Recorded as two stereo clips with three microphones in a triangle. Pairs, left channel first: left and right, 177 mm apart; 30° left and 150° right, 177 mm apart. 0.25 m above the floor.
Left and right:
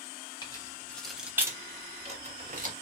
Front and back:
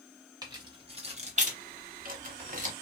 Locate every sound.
0.4 s keys jangling: 150° left, 1.0 m; by 2.7 s 115° right, 1.2 m